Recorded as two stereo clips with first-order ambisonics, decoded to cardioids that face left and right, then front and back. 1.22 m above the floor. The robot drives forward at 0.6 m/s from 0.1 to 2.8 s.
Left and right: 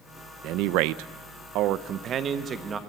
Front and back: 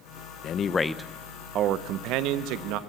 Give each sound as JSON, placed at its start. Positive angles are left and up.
{"t": 0.4, "sound": "a man speaking", "azimuth_deg": -55, "distance_m": 0.6}